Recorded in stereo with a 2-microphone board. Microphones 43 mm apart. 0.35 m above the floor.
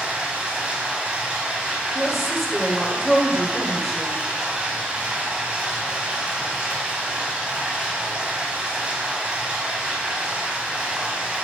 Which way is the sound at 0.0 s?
25° right (ahead or behind).